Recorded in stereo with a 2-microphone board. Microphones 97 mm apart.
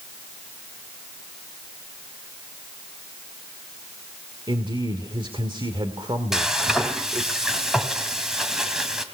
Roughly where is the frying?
Centre.